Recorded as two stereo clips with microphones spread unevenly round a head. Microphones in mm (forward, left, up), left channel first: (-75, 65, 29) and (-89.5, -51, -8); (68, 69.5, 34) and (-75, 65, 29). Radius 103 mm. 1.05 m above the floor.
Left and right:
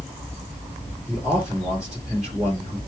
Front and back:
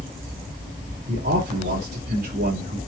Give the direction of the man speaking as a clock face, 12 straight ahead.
6 o'clock.